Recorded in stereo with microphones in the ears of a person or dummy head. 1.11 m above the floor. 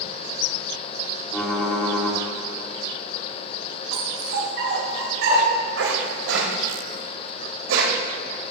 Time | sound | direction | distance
1.3 | typing on a keyboard | 5° left (ahead or behind) | 2.0 m
3.9 | a dog barking | 70° right (ahead or behind) | 1.7 m